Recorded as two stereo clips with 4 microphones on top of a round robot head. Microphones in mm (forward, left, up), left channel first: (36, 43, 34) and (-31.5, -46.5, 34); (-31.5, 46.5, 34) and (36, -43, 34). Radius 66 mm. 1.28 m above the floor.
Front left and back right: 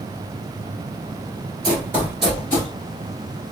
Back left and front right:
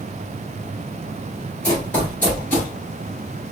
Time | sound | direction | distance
1.6 | running footsteps | 160° right | 1.4 m